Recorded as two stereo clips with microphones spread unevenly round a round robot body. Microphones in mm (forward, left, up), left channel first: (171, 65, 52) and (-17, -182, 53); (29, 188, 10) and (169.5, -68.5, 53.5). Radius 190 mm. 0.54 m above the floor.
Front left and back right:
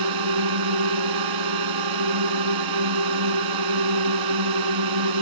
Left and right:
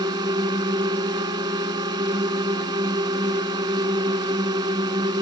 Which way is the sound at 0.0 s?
140° right.